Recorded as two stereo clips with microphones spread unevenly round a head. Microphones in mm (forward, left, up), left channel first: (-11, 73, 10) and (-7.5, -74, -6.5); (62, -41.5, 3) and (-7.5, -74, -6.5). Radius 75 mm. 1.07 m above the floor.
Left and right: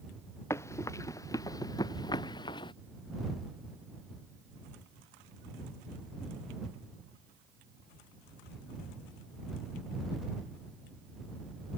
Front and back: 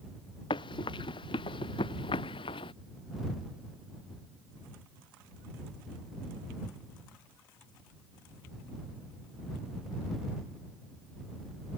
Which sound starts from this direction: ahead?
Running footsteps, at 0.5 s.